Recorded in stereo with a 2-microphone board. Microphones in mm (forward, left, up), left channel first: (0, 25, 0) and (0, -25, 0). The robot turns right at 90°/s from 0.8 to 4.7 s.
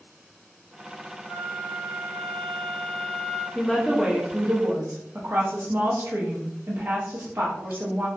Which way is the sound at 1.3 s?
25° left.